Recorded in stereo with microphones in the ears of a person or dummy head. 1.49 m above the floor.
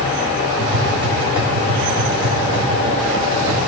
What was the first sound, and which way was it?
Tapping, 20° right (ahead or behind).